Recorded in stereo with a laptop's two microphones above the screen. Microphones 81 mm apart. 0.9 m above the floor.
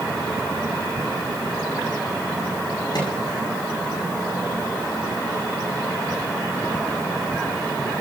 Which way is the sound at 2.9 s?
60° left (ahead or behind).